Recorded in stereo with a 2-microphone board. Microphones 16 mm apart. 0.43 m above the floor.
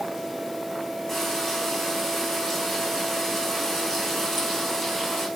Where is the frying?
15° left (ahead or behind), 5 m.